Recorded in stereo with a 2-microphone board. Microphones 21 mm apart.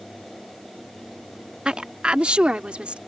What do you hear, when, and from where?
1.6 s a woman speaking: 55° right (ahead or behind); by 3.0 s 70° right (ahead or behind)